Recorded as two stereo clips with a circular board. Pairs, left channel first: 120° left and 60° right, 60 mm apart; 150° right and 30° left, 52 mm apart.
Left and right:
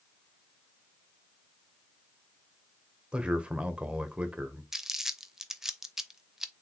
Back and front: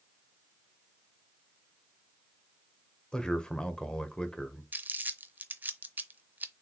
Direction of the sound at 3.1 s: 105° right.